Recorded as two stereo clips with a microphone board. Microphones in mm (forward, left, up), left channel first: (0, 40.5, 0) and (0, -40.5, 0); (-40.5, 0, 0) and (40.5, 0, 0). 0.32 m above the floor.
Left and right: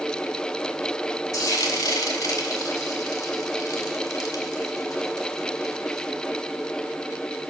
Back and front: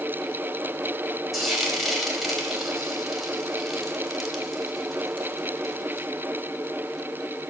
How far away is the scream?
No scream in this recording.